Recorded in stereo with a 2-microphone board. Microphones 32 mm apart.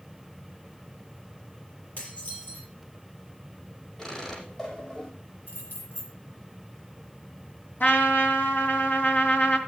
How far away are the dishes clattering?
About 7.5 m.